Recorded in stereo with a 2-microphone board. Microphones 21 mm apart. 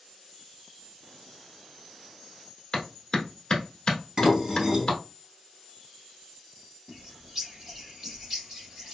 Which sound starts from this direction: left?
A clap, at 2.7 s.